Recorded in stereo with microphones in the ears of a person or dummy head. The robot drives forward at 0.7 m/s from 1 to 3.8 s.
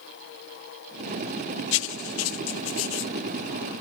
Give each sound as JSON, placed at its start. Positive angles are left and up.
{"t": 1.7, "sound": "writing", "side_deg": 65}